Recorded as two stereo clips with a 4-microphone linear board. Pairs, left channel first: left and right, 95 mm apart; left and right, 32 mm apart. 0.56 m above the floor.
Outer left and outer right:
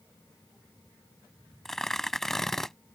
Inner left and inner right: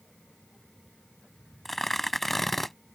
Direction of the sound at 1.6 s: 5° left (ahead or behind).